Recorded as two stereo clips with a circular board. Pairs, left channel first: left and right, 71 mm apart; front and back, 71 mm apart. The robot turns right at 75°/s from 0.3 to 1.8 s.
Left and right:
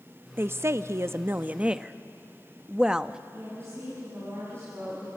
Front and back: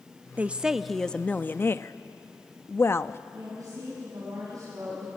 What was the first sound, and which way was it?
A woman speaking, 125° right.